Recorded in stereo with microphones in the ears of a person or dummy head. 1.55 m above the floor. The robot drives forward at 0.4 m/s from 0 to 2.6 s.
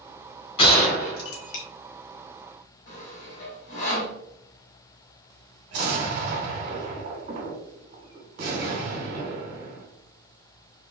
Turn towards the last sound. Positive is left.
turn(degrees=-45)  # may be behind; listen again after turning